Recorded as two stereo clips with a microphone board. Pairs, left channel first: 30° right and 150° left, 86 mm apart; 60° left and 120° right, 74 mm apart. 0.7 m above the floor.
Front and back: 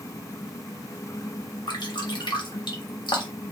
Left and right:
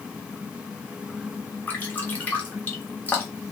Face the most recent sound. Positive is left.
turn(degrees=-5)